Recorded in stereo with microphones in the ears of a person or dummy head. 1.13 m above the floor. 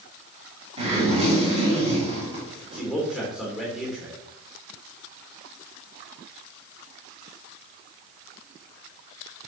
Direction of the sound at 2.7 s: 5° right (ahead or behind).